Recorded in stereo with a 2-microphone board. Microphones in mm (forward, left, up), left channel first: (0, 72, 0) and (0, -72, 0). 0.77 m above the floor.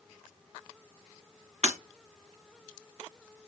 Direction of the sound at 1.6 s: 55° right (ahead or behind).